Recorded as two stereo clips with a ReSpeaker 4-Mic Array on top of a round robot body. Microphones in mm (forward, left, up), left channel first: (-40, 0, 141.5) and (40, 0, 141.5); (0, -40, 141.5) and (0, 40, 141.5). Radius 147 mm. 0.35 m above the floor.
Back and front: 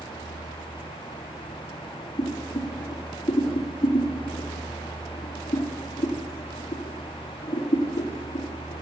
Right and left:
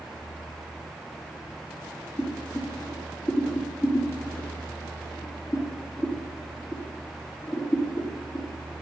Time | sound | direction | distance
2.2 | boiling | 130° right | 4 m